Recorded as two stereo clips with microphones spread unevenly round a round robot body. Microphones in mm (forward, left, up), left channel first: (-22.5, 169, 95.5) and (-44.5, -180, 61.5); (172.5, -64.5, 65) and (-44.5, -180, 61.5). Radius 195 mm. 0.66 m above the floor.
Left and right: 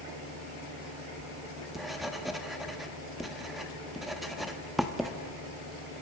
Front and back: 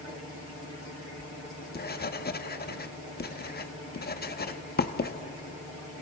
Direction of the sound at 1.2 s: 10° right.